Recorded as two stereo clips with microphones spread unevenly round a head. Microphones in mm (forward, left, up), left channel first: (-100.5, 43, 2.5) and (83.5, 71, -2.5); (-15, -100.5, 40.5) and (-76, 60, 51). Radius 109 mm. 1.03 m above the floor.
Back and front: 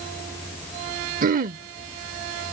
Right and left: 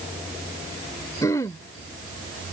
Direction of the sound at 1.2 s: 5° left.